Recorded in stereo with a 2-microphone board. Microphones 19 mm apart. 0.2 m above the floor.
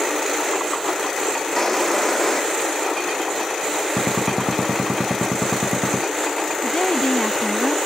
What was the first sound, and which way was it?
A drawer, 25° left (ahead or behind).